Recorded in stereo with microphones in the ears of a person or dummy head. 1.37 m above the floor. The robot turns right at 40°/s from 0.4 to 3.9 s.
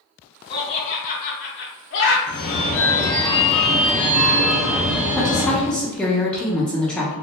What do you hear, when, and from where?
0.5 s laughter: 25° left (ahead or behind), 0.5 m; by 2.2 s 60° left (ahead or behind), 0.5 m
2.3 s a phone ringing: 125° left, 0.7 m; by 5.7 s 170° right, 0.7 m
5.2 s a woman speaking: 5° left (ahead or behind), 0.8 m